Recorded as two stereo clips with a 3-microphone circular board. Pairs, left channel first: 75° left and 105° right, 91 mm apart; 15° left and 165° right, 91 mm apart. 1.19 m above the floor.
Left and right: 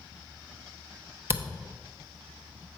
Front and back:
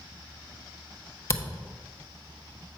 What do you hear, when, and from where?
1.3 s a camera shutter: 45° right, 0.8 m